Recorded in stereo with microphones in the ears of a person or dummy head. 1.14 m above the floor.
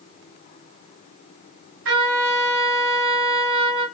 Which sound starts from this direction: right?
A trumpet, at 1.9 s.